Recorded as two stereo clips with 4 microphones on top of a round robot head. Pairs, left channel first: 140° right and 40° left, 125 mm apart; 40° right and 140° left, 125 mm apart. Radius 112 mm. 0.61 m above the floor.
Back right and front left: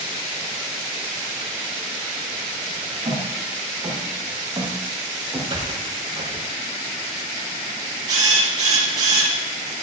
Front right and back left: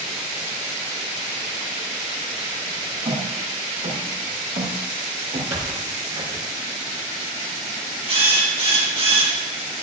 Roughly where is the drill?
Left.